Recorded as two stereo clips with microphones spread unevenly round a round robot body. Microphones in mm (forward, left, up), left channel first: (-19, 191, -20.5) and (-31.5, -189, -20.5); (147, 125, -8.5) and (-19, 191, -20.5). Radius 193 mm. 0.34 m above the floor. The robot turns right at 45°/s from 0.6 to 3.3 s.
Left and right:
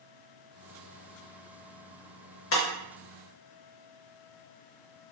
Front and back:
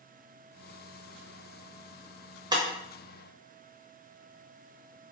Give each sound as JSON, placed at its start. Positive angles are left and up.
{"t": 2.5, "sound": "breaking glass", "azimuth_deg": 115, "distance_m": 0.6}